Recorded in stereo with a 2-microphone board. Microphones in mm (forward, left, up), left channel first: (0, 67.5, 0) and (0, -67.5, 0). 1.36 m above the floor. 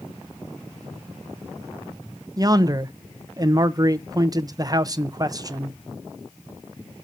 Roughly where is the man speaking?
Right.